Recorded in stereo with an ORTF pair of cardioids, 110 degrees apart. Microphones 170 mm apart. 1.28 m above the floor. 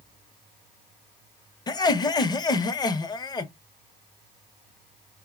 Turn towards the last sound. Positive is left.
turn(degrees=25)